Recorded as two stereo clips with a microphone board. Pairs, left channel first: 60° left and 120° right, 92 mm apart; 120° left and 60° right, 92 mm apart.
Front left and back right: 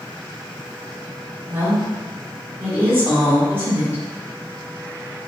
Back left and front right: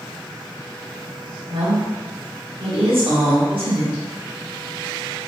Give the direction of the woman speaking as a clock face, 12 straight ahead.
2 o'clock.